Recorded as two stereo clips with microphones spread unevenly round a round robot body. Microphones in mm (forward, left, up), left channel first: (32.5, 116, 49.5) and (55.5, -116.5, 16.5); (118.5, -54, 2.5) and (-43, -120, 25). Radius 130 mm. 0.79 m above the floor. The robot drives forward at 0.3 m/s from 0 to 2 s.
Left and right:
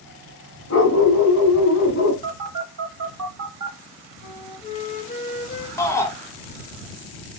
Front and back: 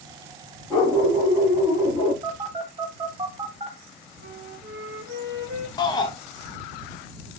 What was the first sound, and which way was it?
A dog barking, 110° left.